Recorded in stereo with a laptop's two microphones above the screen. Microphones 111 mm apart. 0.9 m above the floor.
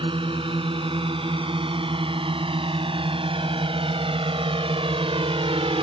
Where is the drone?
55° right (ahead or behind); by 5.8 s 60° right (ahead or behind).